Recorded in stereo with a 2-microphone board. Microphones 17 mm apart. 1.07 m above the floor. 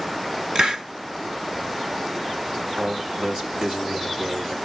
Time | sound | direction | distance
0.6 | a hiss | 45° right (ahead or behind) | 0.9 m
2.8 | a man speaking | 75° right (ahead or behind) | 2.5 m